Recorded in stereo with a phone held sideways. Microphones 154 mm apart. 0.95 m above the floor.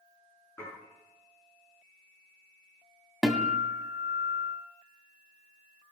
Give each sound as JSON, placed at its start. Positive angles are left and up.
{"t": 0.6, "sound": "dishes clattering", "side_deg": 20, "distance_m": 8.5}
{"t": 3.2, "sound": "a guitar", "side_deg": 0, "distance_m": 1.6}